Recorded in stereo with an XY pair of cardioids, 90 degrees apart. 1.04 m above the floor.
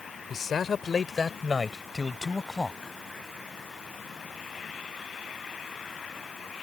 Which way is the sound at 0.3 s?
60° left.